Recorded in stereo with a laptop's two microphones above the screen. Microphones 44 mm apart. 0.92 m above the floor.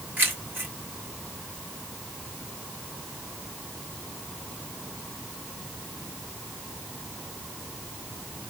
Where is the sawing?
I don't hear sawing.